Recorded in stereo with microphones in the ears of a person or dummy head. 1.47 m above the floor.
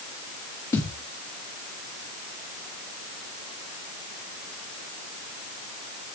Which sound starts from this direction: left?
A thud, at 0.7 s.